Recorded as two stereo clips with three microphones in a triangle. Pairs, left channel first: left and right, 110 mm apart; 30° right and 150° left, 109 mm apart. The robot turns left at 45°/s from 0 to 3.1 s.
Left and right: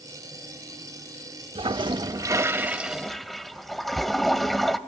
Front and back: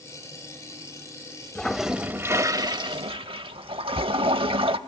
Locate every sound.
1.6 s a toilet flushing: 110° right, 0.6 m; by 4.8 s straight behind, 0.6 m